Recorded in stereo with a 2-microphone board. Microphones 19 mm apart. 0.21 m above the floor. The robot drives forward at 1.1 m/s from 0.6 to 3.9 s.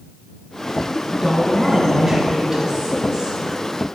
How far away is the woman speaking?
About 2.5 m.